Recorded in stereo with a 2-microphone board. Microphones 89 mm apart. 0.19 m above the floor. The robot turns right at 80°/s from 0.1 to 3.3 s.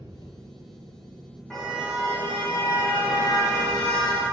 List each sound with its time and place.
0.0 s an engine running: 55° left, 3.5 m; by 4.3 s 50° right, 3.5 m
1.5 s a car horn: 175° left, 5.5 m; by 4.2 s 40° right, 5.5 m